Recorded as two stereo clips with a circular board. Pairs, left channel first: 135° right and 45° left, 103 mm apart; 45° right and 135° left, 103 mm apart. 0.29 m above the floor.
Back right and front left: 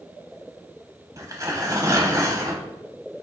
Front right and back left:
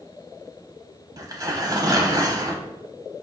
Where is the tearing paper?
95° left, 1.0 m.